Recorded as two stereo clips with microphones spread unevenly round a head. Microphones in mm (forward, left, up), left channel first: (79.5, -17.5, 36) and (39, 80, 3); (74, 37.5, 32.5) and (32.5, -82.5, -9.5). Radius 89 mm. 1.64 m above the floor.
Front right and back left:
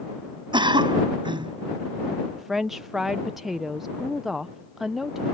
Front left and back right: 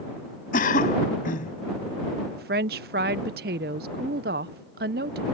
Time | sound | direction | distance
0.5 | a cough | 65° left | ?
2.3 | a woman speaking | 150° right | ?